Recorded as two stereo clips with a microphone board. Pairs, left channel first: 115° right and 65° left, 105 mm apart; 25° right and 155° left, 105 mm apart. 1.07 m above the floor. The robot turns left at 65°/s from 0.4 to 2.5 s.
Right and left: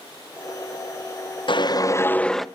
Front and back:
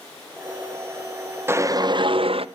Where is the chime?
No chime in this recording.